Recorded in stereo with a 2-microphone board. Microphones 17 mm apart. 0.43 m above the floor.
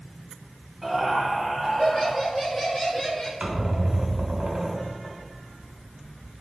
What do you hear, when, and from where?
0.8 s laughter: 5° right (ahead or behind), 1.9 m; by 3.3 s 30° left (ahead or behind), 1.3 m
3.4 s a squeak: 60° right (ahead or behind), 1.8 m